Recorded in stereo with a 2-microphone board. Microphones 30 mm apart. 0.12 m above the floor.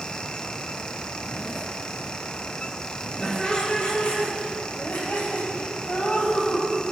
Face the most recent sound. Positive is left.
turn(degrees=75)  # may be behind; listen again after turning